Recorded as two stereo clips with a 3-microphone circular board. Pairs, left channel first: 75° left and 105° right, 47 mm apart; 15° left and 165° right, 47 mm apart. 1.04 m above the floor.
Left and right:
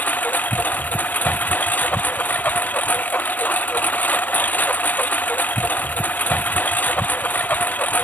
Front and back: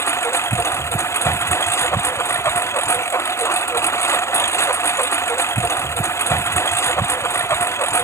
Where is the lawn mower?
25° left.